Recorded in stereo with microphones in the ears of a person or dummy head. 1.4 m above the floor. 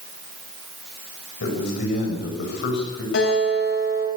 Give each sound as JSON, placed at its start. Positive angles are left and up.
{"t": 1.4, "sound": "a man speaking", "side_deg": 65, "distance_m": 6.0}
{"t": 3.1, "sound": "a guitar", "side_deg": 75, "distance_m": 8.0}